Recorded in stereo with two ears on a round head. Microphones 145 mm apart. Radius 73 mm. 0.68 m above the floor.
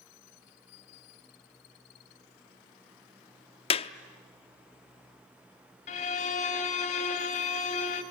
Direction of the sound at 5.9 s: 45° left (ahead or behind).